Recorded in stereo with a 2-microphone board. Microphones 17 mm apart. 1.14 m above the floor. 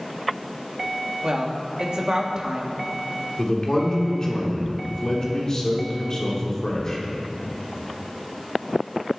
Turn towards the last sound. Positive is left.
turn(degrees=30)  # may be behind; listen again after turning